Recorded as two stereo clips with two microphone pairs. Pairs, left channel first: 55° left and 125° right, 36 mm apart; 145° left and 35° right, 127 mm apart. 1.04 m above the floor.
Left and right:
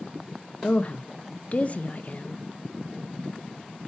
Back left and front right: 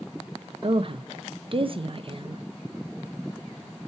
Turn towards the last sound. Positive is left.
turn(degrees=10)